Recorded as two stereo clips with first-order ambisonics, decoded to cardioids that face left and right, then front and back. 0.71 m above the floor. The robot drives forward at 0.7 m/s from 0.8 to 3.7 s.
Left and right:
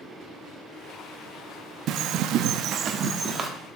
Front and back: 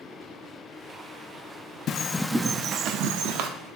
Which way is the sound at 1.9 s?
50° right.